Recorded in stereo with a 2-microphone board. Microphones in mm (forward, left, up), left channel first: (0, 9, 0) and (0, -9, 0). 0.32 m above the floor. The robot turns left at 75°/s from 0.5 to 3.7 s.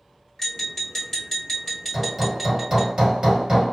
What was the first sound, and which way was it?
Tapping, 135° left.